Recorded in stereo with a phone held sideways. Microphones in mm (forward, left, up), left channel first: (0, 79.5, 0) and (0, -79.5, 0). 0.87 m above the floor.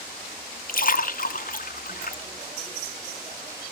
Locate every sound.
0.7 s a splash: 55° left (ahead or behind), 0.9 m